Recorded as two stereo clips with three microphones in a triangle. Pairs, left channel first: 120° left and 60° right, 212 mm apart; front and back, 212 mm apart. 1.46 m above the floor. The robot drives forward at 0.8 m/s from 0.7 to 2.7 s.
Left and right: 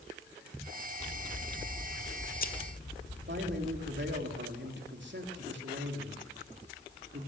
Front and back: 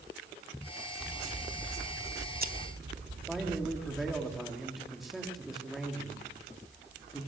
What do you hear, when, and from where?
1.0 s scissors: 95° left, 1.1 m; by 4.2 s 155° left, 1.8 m
3.3 s a man speaking: 90° right, 3.5 m